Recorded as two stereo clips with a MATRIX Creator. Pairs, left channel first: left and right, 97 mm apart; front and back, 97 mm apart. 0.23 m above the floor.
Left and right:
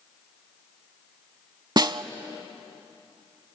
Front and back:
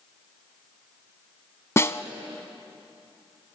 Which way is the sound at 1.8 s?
55° right.